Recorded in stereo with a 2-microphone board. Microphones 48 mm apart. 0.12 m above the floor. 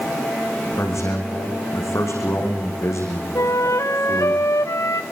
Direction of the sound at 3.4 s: 85° left.